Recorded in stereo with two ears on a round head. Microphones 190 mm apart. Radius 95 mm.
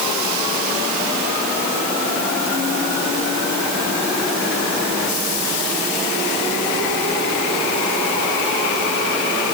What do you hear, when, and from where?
Only background noise.